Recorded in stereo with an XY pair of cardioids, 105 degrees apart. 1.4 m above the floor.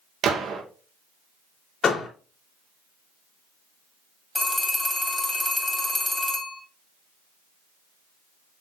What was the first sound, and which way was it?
A gunshot, 70° right.